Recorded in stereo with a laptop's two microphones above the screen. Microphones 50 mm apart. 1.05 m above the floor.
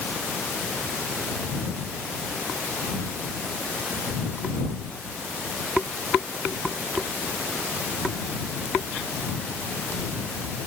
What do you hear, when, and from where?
Only background noise.